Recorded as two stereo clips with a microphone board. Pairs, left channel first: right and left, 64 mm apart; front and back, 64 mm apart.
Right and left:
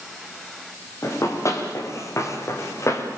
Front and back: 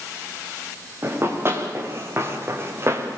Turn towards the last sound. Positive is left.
turn(degrees=-130)